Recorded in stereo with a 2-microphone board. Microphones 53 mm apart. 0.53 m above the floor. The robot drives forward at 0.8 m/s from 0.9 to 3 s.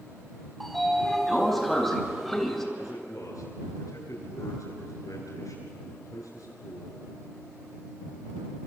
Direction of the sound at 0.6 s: 5° left (ahead or behind).